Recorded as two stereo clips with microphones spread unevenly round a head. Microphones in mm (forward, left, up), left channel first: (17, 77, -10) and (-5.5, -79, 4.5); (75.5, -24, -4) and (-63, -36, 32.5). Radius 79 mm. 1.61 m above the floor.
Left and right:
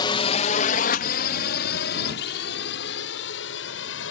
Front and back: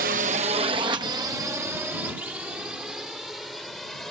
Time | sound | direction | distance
0.0 | a drone | 145° left | ?